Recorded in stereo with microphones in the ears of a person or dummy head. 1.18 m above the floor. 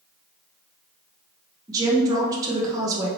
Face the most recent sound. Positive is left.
turn(degrees=-20)  # may be behind; listen again after turning